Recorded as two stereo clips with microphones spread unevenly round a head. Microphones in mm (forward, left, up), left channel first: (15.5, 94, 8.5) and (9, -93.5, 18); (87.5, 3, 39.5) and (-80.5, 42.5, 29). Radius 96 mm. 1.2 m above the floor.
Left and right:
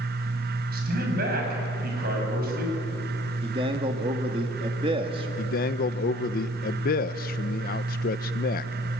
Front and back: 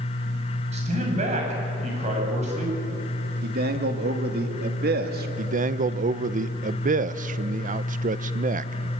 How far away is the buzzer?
No buzzer in this recording.